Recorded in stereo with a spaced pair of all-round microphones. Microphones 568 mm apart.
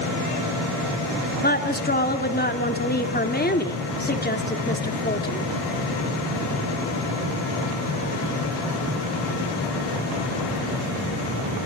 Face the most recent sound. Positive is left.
turn(degrees=15)  # may be behind; listen again after turning